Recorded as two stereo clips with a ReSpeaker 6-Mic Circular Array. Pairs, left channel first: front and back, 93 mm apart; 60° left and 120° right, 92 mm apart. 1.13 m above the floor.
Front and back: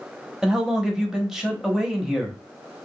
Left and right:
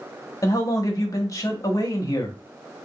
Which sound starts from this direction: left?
A man speaking, at 0.4 s.